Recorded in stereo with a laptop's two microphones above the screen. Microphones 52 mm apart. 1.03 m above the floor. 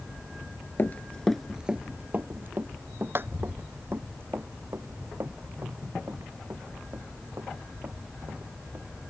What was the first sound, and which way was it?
Running footsteps, 40° left (ahead or behind).